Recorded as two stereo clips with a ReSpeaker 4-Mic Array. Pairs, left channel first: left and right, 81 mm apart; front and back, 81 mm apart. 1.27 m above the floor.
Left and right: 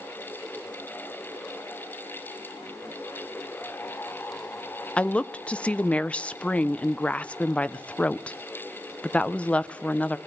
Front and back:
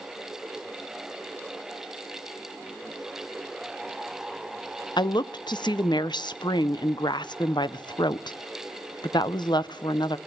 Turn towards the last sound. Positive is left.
turn(degrees=15)